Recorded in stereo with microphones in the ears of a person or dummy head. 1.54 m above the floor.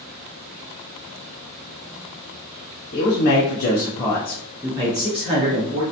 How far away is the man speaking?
About 0.8 m.